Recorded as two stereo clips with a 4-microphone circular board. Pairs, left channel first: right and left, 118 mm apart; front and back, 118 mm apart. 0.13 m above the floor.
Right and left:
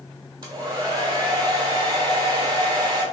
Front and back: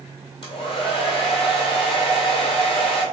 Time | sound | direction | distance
0.4 | a hair dryer | 35° left | 0.9 m